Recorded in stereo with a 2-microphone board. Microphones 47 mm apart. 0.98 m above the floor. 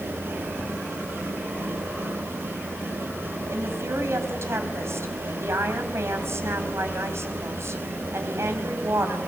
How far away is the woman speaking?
About 5 m.